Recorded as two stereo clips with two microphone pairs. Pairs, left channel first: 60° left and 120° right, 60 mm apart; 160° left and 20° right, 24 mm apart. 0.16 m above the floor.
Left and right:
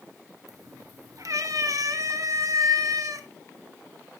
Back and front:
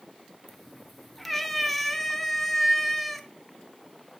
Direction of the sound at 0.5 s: 115° right.